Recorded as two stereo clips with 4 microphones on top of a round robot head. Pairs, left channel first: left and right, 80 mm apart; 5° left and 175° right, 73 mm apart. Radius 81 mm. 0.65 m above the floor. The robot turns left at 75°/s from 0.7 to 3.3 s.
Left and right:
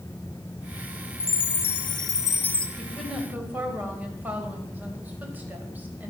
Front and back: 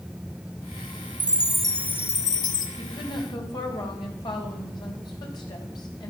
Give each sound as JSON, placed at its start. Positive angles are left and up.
{"t": 1.2, "sound": "a chime", "azimuth_deg": 120, "distance_m": 0.7}
{"t": 2.8, "sound": "a woman speaking", "azimuth_deg": 15, "distance_m": 4.0}